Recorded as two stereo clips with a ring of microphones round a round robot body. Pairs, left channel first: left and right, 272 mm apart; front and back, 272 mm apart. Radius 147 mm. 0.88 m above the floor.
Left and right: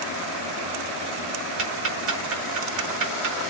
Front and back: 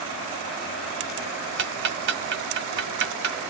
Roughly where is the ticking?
Behind right.